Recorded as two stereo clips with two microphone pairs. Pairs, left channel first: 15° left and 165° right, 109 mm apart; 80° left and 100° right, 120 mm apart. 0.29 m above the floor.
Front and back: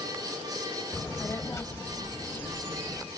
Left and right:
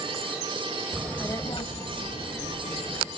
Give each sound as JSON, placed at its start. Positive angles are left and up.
{"t": 0.9, "sound": "a child speaking", "azimuth_deg": -35, "distance_m": 0.5}